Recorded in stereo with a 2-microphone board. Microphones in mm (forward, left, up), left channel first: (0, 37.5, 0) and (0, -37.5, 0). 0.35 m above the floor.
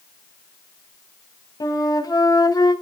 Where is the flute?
55° left (ahead or behind), 2 m.